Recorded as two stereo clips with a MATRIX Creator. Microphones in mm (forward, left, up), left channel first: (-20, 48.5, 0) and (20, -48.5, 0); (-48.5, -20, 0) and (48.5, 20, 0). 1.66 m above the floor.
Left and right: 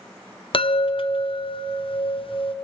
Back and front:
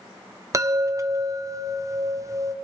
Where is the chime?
80° left, 0.7 m.